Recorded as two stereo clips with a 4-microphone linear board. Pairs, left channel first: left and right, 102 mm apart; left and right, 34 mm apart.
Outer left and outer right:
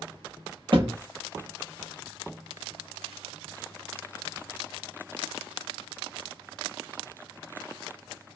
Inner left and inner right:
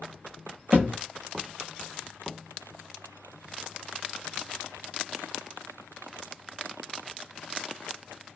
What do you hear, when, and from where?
0.7 s a thud: 55° right (ahead or behind), 0.8 m